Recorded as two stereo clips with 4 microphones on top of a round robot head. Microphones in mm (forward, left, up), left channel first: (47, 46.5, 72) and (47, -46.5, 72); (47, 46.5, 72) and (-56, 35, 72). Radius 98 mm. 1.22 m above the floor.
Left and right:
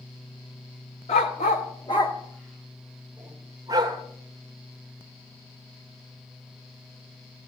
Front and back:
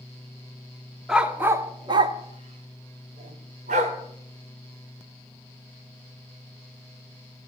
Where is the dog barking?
105° left, 1.1 m; by 4.0 s 155° right, 2.0 m.